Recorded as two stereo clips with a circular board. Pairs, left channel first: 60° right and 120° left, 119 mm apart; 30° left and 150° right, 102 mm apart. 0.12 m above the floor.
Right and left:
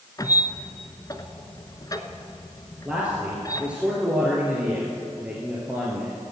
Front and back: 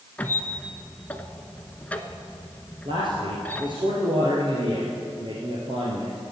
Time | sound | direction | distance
0.2 | a squeak | 35° right | 0.9 m
2.9 | a man speaking | 160° right | 2.5 m